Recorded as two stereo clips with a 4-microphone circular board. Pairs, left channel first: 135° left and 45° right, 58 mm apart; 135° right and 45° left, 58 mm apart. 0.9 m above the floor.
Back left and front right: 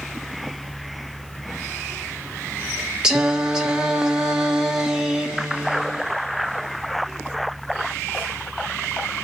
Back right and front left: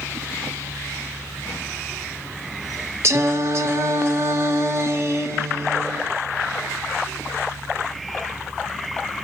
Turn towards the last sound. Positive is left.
turn(degrees=30)